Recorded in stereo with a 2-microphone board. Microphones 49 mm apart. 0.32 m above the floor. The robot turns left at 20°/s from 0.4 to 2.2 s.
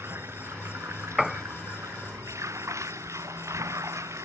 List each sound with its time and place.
0.0 s running water: 55° right; by 4.2 s 90° right
1.2 s a piano: centre (ahead or behind); by 1.4 s 5° right (ahead or behind)